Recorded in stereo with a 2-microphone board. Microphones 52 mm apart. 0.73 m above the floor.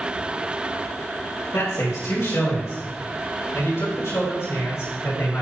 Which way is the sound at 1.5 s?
75° left (ahead or behind).